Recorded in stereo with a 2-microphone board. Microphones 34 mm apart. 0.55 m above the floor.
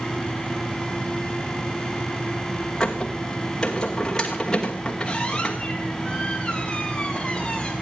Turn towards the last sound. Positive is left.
turn(degrees=20)  # may be behind; listen again after turning